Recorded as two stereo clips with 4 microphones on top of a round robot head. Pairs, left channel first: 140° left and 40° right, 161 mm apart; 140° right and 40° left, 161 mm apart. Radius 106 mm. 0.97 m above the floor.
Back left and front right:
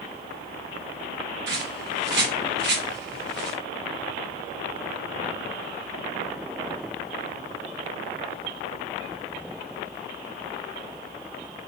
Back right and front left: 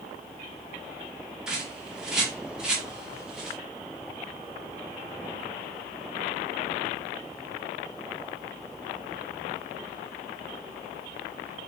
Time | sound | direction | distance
1.5 | a bird | 45° right | 1.6 m